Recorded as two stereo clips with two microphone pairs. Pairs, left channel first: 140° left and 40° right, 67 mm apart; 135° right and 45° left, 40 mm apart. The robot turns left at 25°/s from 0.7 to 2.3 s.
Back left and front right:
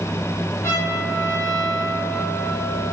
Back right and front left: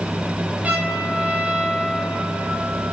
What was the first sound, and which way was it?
A trumpet, 95° left.